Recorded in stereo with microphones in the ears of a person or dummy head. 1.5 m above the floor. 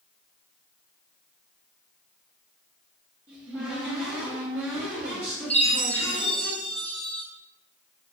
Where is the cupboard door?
10° right (ahead or behind), 0.9 m.